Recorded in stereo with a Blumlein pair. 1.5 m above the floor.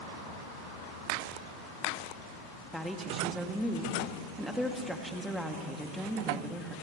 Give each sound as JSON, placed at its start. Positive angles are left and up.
{"t": 2.7, "sound": "a woman speaking", "azimuth_deg": 5, "distance_m": 2.5}